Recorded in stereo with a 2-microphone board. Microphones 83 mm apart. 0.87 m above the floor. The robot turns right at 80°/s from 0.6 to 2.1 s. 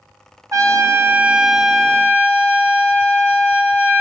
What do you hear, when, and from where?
0.5 s a trumpet: 80° right, 0.7 m; by 4.0 s 40° left, 0.7 m